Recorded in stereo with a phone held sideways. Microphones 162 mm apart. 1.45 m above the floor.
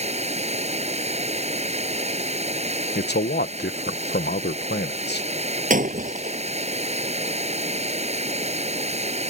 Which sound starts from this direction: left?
A man speaking, at 3.0 s.